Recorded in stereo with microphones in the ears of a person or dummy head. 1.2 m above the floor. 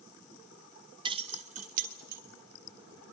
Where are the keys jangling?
25° right (ahead or behind), 0.8 m; by 2.2 s 50° right (ahead or behind), 2 m.